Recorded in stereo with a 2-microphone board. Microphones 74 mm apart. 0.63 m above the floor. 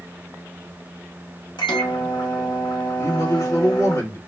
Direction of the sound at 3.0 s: 45° left (ahead or behind).